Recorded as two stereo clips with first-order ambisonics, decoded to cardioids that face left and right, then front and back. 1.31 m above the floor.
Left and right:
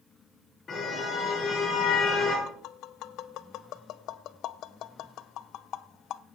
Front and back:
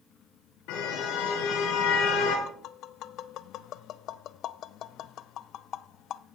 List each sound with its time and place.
0.7 s a car horn: 25° left, 6.5 m
2.5 s tapping: 50° left, 0.6 m